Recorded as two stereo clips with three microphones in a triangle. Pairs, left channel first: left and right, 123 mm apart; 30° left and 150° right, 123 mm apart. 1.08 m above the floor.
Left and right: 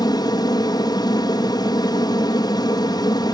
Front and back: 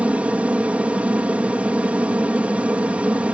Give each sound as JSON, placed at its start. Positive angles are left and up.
{"t": 0.0, "sound": "an aircraft", "azimuth_deg": 135}